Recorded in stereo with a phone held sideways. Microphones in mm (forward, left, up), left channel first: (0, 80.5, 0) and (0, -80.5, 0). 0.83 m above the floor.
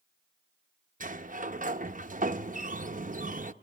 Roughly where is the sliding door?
Right.